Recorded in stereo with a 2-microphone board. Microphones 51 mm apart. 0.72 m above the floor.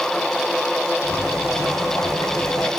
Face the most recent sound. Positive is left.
turn(degrees=80)